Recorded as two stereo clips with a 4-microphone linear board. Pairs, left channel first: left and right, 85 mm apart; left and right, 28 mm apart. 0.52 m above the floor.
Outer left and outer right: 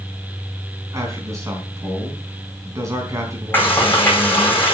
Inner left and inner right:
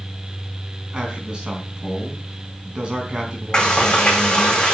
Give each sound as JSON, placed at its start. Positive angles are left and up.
{"t": 0.9, "sound": "a man speaking", "side_deg": -35, "distance_m": 4.0}
{"t": 3.5, "sound": "frying", "side_deg": 20, "distance_m": 5.0}